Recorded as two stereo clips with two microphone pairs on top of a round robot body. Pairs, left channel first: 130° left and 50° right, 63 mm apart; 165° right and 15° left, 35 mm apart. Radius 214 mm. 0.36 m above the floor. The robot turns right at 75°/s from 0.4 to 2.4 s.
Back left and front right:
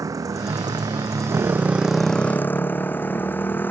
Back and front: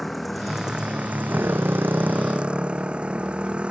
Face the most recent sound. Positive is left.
turn(degrees=70)